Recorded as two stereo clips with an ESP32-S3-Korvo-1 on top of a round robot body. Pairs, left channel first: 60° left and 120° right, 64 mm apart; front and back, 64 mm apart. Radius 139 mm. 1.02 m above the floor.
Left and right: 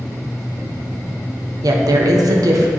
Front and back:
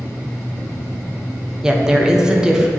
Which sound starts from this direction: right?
A woman speaking, at 1.6 s.